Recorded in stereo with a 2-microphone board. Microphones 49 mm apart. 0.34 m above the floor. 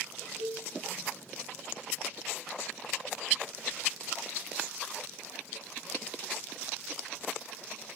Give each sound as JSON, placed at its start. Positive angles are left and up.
{"t": 0.4, "sound": "a cowbell", "side_deg": -75, "distance_m": 2.5}